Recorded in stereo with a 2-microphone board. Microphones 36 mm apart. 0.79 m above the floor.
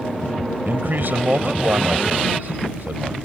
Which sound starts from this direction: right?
A man speaking, at 0.7 s.